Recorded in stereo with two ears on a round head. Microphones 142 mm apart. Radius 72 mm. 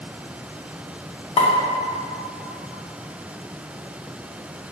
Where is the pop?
35° left (ahead or behind), 0.5 m.